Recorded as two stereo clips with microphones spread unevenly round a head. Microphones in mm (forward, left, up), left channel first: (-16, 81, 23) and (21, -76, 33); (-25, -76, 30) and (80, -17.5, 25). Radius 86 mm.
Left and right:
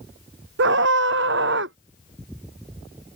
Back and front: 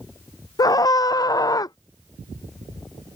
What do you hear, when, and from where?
0.6 s a scream: 90° right